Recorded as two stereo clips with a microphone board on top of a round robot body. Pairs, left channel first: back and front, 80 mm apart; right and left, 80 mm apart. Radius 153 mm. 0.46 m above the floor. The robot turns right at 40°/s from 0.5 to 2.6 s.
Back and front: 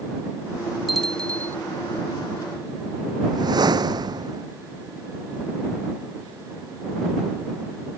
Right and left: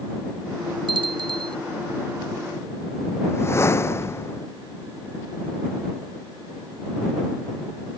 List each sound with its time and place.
0.9 s a bell: 90° left; by 1.6 s 115° left
3.2 s a whoosh: 30° right